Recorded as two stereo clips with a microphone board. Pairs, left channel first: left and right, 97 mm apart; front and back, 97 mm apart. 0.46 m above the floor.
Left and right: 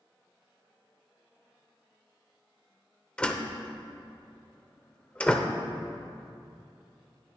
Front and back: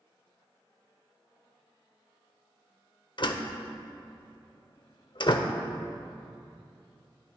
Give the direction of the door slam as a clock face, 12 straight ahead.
12 o'clock.